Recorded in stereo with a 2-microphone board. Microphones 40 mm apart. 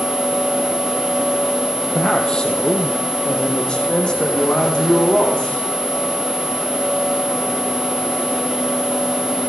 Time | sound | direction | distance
1.9 | a man speaking | 20° left (ahead or behind) | 4 m